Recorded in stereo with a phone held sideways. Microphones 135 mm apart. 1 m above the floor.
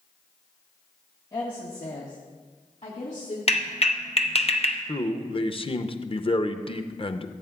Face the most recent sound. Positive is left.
turn(degrees=40)  # may be behind; listen again after turning